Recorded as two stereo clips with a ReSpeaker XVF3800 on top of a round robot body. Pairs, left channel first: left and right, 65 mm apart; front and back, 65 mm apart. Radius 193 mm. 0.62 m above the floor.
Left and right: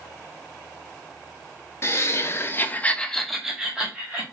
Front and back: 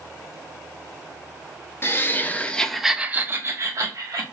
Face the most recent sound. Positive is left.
turn(degrees=-160)